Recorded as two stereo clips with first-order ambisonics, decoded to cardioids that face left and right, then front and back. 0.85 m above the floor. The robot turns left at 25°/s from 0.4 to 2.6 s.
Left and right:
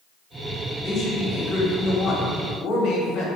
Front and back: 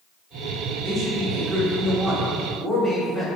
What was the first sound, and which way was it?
A man speaking, 125° left.